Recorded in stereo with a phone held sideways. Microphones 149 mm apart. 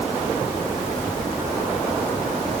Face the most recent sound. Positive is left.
No sound to turn to.